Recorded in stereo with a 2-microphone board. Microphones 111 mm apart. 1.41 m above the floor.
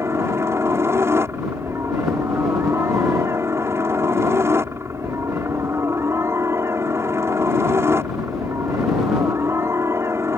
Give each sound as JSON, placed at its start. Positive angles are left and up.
{"t": 0.0, "sound": "a helicopter", "side_deg": -25}